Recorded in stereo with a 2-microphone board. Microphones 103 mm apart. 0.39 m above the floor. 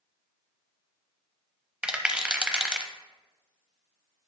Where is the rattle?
10° right (ahead or behind), 0.5 m.